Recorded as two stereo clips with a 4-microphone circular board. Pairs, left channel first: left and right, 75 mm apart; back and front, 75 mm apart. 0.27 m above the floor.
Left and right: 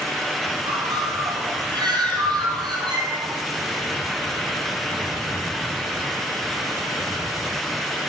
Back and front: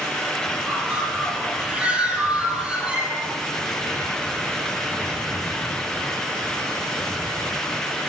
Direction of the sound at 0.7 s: 75° right.